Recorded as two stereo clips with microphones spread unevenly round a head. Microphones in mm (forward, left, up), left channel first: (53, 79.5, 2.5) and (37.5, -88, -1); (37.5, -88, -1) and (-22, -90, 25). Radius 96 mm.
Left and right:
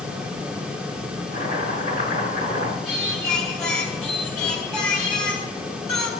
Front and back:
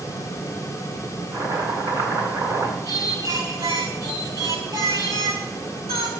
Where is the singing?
170° left, 4 m.